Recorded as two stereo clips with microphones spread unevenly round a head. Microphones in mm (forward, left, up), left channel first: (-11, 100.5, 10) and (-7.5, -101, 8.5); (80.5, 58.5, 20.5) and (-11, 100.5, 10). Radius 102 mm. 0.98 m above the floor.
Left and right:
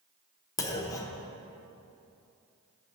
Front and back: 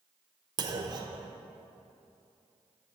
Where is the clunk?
160° left, 0.8 m.